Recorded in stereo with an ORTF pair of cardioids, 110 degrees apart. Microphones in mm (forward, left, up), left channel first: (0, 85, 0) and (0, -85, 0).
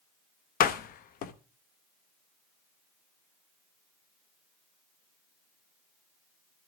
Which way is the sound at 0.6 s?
60° left.